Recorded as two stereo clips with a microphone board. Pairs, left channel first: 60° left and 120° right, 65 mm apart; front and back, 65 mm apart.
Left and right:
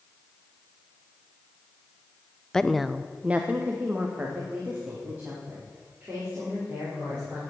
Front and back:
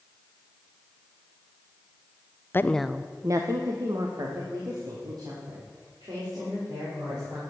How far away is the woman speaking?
About 0.6 m.